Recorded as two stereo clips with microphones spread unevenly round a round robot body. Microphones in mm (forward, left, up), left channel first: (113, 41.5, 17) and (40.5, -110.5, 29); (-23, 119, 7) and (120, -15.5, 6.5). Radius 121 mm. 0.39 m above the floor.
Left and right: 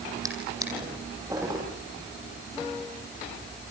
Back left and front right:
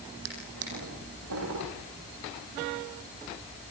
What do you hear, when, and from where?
0.2 s a drawer: 45° right, 10 m